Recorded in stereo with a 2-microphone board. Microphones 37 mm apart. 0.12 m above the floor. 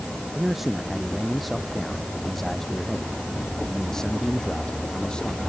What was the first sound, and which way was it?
A man speaking, 10° right (ahead or behind).